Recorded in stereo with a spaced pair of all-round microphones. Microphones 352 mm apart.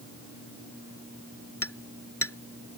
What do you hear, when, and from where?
1.6 s hammering: 40° left (ahead or behind)